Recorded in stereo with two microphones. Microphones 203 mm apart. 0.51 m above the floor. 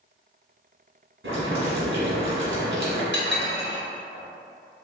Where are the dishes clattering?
60° left (ahead or behind), 0.8 m.